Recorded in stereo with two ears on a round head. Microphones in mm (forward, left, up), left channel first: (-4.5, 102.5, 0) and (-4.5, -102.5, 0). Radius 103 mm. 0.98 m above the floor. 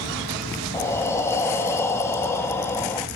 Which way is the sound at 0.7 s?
10° left (ahead or behind).